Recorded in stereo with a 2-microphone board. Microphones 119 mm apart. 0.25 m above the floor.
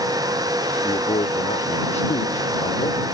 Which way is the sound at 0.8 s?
55° left (ahead or behind).